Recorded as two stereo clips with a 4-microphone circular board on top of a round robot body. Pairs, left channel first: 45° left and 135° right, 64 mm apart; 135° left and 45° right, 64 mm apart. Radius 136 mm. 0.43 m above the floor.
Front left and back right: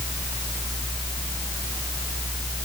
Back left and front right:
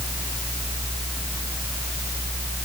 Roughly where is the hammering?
I don't hear hammering.